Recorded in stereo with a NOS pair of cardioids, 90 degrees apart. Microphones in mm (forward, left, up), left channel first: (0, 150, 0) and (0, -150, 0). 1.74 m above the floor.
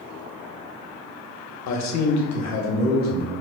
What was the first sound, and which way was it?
A man speaking, 60° left.